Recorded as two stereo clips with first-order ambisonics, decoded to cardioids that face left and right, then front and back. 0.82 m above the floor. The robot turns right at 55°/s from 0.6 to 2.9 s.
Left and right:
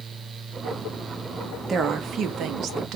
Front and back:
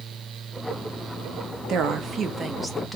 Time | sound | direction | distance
1.7 | a woman speaking | 155° right | 0.6 m